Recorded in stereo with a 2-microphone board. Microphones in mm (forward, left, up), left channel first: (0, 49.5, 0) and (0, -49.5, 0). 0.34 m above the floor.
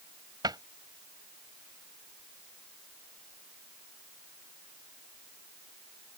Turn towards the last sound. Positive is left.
turn(degrees=-45)  # may be behind; listen again after turning